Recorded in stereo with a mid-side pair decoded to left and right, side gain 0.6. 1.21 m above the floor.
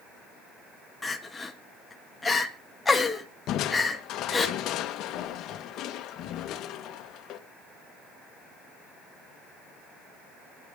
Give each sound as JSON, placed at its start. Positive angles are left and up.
{"t": 1.0, "sound": "crying", "azimuth_deg": 15, "distance_m": 1.8}
{"t": 3.5, "sound": "crushing", "azimuth_deg": 60, "distance_m": 1.3}